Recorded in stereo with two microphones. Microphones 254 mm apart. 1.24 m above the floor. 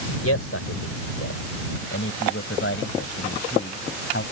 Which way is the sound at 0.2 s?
70° left (ahead or behind).